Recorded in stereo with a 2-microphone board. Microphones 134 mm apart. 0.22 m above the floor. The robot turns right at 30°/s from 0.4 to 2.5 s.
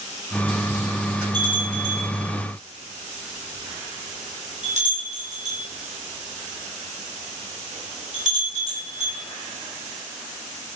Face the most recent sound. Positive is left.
turn(degrees=-65)  # may be behind; listen again after turning